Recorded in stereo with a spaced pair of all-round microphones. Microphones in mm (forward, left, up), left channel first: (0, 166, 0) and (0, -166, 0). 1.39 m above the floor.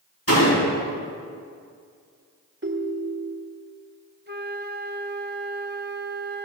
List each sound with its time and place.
0.3 s a door slam: 45° left (ahead or behind), 6.5 m
2.6 s a ringtone: 35° right (ahead or behind), 1.2 m
4.3 s a flute: 30° right (ahead or behind), 0.9 m